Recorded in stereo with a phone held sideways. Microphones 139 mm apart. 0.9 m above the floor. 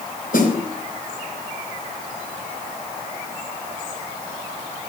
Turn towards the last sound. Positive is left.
turn(degrees=70)  # may be behind; listen again after turning